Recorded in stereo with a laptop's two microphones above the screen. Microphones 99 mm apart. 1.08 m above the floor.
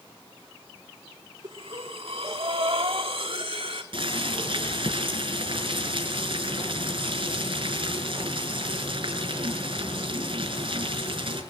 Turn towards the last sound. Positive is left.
turn(degrees=-55)  # may be behind; listen again after turning